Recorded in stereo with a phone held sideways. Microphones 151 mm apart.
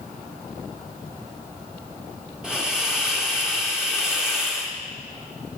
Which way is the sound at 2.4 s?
5° right (ahead or behind).